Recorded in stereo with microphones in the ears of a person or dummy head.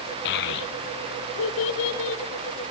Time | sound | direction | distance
0.2 | a child speaking | 60° left (ahead or behind) | 1.0 m